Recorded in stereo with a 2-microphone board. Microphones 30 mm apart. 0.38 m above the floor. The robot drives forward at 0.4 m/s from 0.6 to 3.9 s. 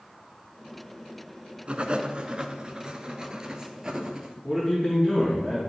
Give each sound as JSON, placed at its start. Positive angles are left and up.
{"t": 1.7, "sound": "writing", "side_deg": -45, "distance_m": 0.8}
{"t": 4.4, "sound": "a man speaking", "side_deg": 20, "distance_m": 3.0}